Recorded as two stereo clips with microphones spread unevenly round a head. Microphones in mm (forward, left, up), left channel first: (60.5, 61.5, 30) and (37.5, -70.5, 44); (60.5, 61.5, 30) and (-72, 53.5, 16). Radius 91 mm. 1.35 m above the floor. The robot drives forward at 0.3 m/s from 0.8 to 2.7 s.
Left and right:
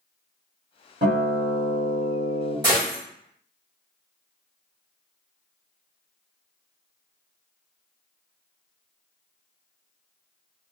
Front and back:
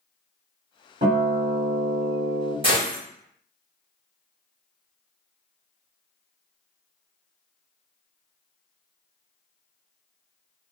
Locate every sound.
1.0 s a guitar: 135° right, 1.5 m; by 2.5 s 145° right, 1.8 m
2.6 s a gunshot: 140° right, 0.7 m